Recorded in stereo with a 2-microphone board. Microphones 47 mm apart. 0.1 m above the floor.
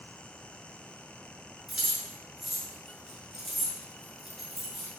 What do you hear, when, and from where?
1.7 s keys jangling: 5° right (ahead or behind), 1.0 m